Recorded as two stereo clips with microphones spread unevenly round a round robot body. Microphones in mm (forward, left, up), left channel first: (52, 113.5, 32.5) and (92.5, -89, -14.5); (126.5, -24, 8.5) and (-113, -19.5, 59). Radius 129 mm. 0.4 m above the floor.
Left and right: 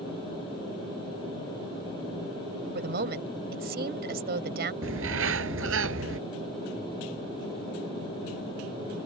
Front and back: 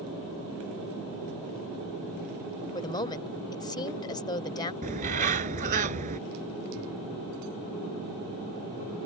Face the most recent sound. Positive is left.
turn(degrees=-125)